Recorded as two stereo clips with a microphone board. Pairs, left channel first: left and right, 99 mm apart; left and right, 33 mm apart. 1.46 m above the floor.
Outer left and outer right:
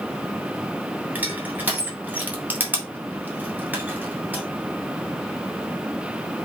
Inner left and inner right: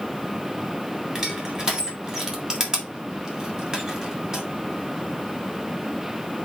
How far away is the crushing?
About 2 m.